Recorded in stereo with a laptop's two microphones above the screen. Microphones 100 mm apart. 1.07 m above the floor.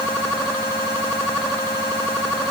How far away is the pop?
I don't hear a pop.